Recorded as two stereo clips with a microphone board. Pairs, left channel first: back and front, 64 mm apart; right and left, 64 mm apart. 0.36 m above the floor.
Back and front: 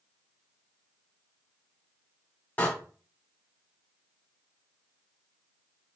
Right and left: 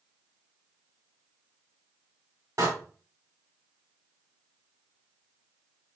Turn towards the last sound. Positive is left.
turn(degrees=115)